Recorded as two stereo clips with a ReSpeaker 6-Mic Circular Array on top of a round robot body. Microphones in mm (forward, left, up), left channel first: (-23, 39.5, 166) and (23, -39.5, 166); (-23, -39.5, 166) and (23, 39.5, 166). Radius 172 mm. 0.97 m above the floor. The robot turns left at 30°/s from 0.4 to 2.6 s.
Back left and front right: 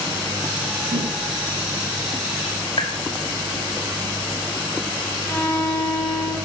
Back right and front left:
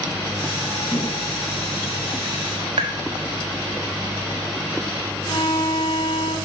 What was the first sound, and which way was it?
A whoosh, 50° right.